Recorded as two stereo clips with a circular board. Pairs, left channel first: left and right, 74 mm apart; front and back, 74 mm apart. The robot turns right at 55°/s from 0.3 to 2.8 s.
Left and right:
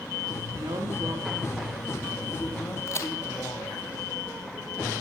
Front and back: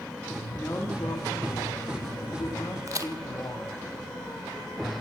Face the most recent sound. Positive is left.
turn(degrees=140)